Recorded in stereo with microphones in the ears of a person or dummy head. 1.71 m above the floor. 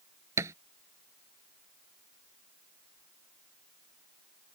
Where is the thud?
15° right (ahead or behind).